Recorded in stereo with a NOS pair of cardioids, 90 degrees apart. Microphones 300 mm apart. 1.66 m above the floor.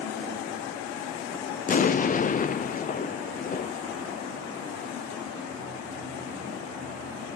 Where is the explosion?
25° left, 0.6 m.